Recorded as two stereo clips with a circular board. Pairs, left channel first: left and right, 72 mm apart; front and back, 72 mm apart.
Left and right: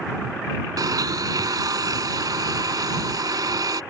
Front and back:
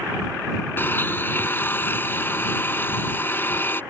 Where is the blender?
60° right.